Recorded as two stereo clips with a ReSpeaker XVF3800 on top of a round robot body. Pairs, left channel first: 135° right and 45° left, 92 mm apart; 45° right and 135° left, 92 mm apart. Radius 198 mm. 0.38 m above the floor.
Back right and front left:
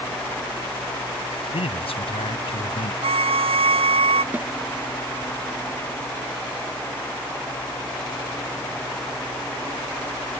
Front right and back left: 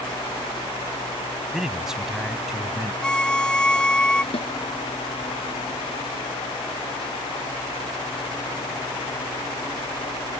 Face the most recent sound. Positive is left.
turn(degrees=-30)